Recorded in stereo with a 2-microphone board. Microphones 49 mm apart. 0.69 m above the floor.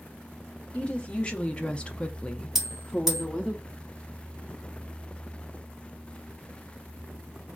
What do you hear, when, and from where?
0.7 s a woman speaking: 25° left (ahead or behind), 1.0 m; by 3.5 s centre (ahead or behind), 0.7 m
2.5 s a bell: 10° right (ahead or behind), 1.7 m